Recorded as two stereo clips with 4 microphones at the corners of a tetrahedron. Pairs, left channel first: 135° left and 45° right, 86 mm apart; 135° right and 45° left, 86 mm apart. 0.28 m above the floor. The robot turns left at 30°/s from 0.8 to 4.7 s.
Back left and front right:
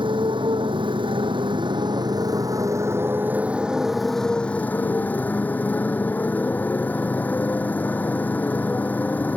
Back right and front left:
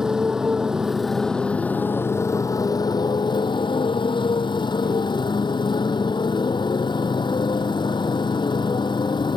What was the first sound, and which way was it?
A motorcycle, 40° right.